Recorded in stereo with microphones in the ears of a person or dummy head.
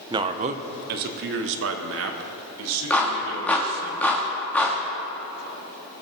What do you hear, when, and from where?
0.1 s a man speaking: 20° right (ahead or behind), 0.8 m; by 3.9 s 80° right, 2.5 m
2.9 s a clap: 5° left (ahead or behind), 1.9 m